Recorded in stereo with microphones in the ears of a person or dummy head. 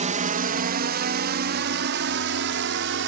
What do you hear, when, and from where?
0.0 s a drone: 35° right (ahead or behind); by 3.1 s 65° right (ahead or behind)